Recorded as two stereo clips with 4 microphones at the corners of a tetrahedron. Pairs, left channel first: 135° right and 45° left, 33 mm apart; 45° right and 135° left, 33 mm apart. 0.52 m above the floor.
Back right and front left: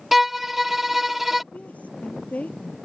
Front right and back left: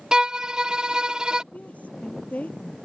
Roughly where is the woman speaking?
Right.